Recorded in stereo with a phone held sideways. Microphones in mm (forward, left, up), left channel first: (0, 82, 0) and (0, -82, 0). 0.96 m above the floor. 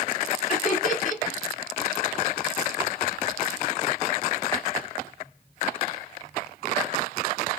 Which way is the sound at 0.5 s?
50° left (ahead or behind).